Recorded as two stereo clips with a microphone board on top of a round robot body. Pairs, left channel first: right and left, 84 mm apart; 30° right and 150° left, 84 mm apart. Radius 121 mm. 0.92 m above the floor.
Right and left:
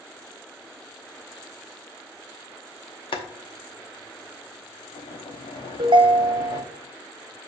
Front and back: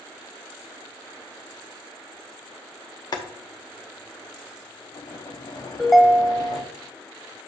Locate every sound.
3.1 s boiling: 75° right, 1.1 m
5.8 s a ringtone: 55° left, 0.8 m